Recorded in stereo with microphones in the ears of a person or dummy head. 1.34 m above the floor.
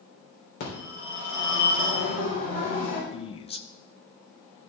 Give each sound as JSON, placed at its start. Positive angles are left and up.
{"t": 0.6, "sound": "a phone ringing", "side_deg": 55, "distance_m": 4.0}
{"t": 3.1, "sound": "a man speaking", "side_deg": 30, "distance_m": 0.7}